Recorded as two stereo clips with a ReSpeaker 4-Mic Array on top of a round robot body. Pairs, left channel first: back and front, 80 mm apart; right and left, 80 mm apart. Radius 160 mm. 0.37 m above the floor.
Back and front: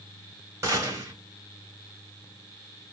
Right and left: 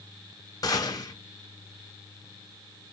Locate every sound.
0.6 s a gunshot: 55° right, 3 m